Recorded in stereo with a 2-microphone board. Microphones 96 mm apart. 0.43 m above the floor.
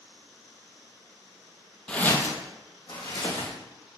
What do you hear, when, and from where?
1.9 s footsteps: 10° left (ahead or behind), 0.6 m; by 3.5 s 70° left (ahead or behind), 1.4 m